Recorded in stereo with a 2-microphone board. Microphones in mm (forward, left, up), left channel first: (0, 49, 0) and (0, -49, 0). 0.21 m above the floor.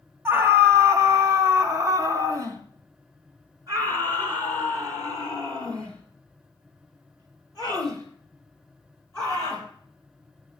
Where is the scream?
25° right (ahead or behind), 1.2 m; by 9.7 s 40° right (ahead or behind), 5.5 m.